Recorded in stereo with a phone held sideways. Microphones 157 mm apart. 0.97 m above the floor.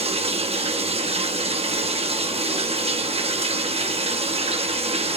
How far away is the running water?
About 0.8 m.